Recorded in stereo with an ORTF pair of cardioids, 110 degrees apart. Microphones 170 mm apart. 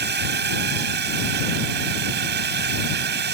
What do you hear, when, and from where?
0.0 s a drone: 70° right